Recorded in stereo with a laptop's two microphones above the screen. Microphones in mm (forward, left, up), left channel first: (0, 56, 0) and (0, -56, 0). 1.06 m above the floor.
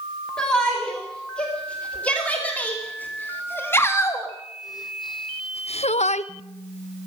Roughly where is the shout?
Centre.